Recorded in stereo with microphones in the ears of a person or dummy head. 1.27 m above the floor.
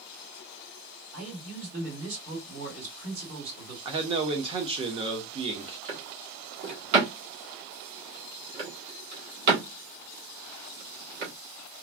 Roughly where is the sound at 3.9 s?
Right.